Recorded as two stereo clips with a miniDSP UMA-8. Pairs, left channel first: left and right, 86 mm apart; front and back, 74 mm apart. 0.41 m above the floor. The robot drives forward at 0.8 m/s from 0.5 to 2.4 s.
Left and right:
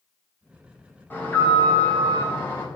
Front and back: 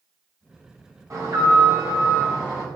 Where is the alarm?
155° left, 4 m; by 2.7 s 160° left, 5 m.